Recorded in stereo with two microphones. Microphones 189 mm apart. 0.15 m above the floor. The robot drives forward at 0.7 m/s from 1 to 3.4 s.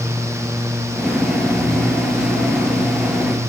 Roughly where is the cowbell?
No cowbell in this recording.